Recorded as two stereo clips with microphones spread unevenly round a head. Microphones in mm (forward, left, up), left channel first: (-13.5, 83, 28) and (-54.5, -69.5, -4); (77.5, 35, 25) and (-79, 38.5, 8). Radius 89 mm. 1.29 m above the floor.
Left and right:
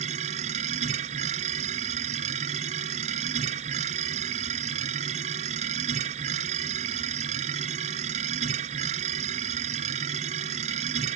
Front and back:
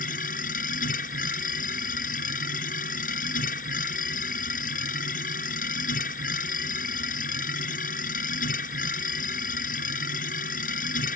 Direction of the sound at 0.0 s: 50° right.